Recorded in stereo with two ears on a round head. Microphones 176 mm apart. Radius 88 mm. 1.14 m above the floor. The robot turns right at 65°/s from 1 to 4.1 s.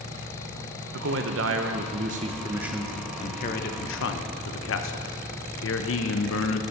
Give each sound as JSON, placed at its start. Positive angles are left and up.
{"t": 0.9, "sound": "a man speaking", "azimuth_deg": -115, "distance_m": 0.8}